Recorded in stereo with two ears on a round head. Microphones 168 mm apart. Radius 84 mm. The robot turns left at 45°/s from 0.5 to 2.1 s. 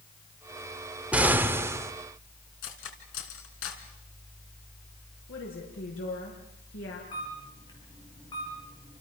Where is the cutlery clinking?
70° left (ahead or behind), 3.5 m.